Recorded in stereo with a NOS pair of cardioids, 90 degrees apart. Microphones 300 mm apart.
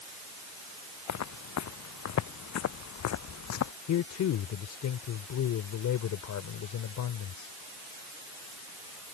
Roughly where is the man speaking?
Left.